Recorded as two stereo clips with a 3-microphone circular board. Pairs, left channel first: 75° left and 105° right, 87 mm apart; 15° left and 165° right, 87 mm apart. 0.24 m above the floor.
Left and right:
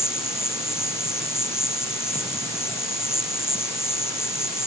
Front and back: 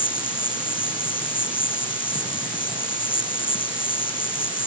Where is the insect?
15° left.